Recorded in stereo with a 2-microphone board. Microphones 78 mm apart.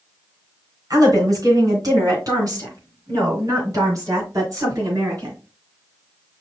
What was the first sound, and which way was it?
A woman speaking, 50° right (ahead or behind).